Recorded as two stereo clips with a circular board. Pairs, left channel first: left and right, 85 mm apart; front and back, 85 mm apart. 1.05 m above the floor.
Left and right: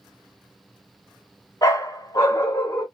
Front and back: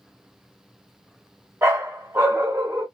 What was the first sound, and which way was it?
A dog barking, 125° left.